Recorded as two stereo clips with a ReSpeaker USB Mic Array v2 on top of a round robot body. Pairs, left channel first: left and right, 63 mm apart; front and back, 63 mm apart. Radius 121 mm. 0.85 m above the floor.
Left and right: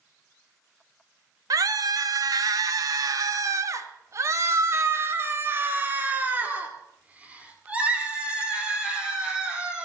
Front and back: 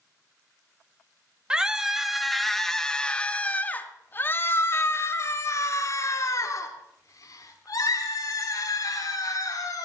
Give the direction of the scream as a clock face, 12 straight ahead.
3 o'clock.